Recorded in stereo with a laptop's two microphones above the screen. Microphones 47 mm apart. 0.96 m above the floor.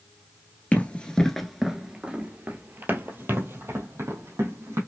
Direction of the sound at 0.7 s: 35° left (ahead or behind).